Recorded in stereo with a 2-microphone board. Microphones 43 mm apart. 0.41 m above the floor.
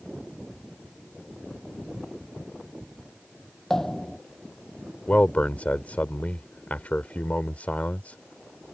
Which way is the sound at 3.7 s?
5° left (ahead or behind).